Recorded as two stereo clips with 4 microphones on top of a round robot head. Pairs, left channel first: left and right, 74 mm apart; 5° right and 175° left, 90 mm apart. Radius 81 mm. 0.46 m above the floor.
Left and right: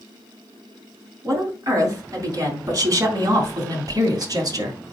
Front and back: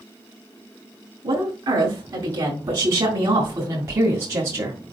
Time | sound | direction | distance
1.2 | a woman speaking | 135° right | 4.5 m